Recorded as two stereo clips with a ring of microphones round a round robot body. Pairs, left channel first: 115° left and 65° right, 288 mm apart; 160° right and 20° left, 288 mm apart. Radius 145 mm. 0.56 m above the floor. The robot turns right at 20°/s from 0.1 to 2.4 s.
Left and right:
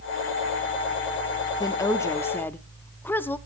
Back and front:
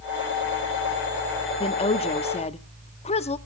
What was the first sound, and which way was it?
A woman speaking, 170° left.